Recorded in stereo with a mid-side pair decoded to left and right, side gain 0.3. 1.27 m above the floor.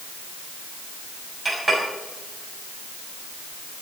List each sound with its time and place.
1.4 s a clink: 25° right, 7 m